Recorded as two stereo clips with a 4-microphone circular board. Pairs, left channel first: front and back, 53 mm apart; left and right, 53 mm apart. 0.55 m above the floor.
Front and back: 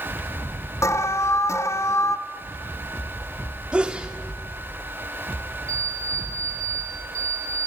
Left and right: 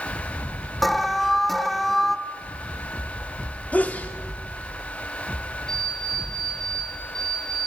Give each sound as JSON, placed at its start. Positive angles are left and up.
{"t": 0.8, "sound": "an alarm", "azimuth_deg": 5, "distance_m": 0.9}
{"t": 3.7, "sound": "a sneeze", "azimuth_deg": 125, "distance_m": 1.1}
{"t": 5.7, "sound": "an alarm clock", "azimuth_deg": 170, "distance_m": 5.0}